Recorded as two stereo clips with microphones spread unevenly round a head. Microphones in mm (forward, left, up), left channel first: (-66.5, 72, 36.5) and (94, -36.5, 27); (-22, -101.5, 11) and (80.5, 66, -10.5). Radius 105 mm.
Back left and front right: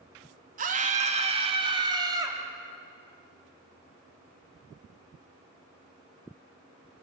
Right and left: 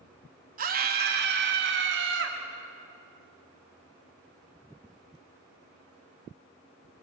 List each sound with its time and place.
0.6 s a scream: 15° left, 2.5 m; by 2.4 s 40° left, 3.5 m